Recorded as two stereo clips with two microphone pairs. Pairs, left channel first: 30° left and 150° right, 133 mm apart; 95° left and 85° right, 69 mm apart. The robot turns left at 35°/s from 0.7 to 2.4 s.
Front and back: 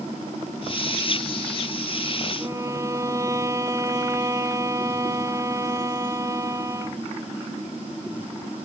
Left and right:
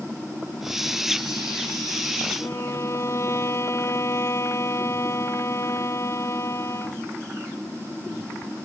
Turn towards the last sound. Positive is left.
turn(degrees=140)